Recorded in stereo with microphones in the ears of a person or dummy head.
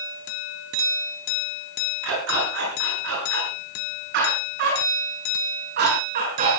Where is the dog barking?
70° right (ahead or behind), 8.5 m; by 6.6 s 45° right (ahead or behind), 7.5 m.